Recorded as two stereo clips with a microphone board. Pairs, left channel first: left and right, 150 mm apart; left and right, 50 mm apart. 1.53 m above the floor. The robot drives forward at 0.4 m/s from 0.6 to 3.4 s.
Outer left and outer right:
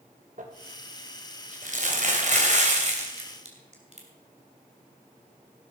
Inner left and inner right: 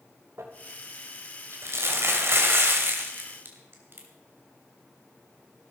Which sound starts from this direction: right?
Crumpling, at 0.4 s.